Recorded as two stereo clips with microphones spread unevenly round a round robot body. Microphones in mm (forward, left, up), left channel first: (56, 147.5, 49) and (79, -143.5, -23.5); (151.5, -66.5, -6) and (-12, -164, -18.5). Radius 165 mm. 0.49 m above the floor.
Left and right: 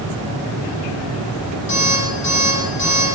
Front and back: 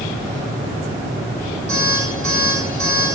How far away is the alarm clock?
About 7 m.